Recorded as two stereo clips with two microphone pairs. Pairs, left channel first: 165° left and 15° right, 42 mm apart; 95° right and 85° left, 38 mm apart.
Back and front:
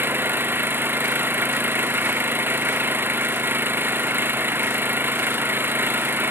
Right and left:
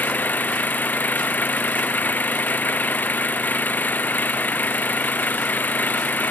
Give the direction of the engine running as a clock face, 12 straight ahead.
2 o'clock.